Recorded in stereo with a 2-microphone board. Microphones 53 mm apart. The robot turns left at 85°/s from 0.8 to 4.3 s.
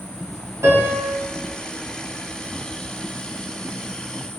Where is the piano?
60° right (ahead or behind), 0.9 m; by 1.1 s 40° right (ahead or behind), 0.9 m.